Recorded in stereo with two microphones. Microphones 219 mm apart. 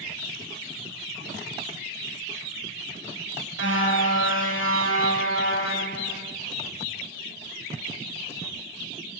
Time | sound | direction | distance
3.6 | a car horn | 60° left (ahead or behind) | 8.5 m